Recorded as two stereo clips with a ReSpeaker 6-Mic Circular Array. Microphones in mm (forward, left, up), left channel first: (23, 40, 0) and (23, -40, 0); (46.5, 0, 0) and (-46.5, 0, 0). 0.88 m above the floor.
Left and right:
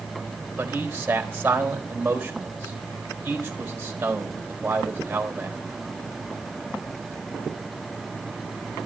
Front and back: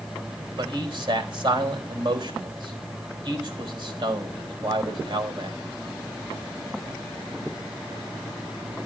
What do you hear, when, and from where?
0.6 s a man speaking: 160° right, 4 m